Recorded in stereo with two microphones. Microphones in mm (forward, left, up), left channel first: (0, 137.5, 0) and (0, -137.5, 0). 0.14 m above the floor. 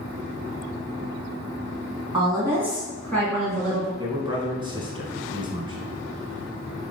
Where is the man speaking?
15° right (ahead or behind), 1.0 m.